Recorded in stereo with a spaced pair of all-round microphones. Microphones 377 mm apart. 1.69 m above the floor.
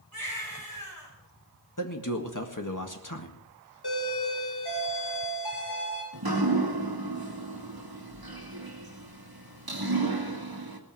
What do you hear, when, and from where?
0.1 s a baby crying: 65° left (ahead or behind), 5.5 m
1.8 s a man speaking: 55° left (ahead or behind), 1.8 m
3.8 s a doorbell: 90° left, 4 m
6.1 s dripping: 70° right (ahead or behind), 1.9 m